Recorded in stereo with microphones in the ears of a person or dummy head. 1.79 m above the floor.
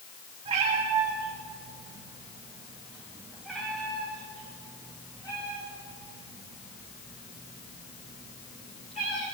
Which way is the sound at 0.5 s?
35° right (ahead or behind).